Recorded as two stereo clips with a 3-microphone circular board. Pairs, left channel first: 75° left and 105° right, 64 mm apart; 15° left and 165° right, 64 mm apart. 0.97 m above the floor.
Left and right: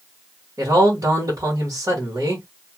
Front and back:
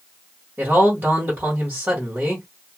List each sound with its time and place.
0.6 s a man speaking: 115° right, 1.5 m